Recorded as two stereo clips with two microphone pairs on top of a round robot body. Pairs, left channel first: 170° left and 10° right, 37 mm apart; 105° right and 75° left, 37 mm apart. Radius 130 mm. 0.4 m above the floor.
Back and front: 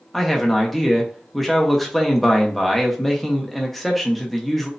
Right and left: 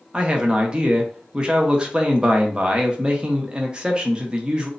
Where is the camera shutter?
I don't hear a camera shutter.